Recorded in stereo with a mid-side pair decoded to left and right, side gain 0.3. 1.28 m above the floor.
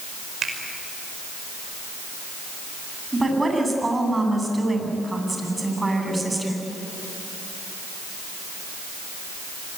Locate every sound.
0.4 s a finger snap: 65° right, 5 m
3.1 s a woman speaking: 30° right, 9 m